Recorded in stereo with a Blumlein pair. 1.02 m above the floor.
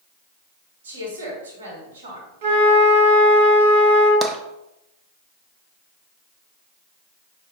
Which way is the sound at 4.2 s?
10° right.